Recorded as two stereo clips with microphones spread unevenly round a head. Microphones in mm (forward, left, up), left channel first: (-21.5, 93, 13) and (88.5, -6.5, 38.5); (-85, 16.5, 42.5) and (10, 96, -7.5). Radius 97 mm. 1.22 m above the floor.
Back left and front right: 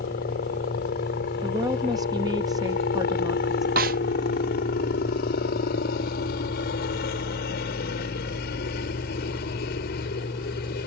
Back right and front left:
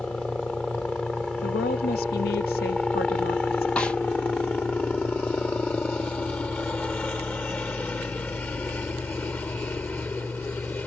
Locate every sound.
0.0 s a helicopter: 135° left; by 10.9 s 145° left
1.4 s a woman speaking: 115° right
3.8 s a snare drum: 70° right